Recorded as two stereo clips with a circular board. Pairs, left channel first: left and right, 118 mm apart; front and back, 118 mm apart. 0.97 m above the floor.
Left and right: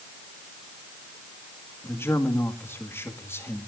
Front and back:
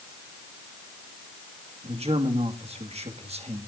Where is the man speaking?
160° left, 2 m.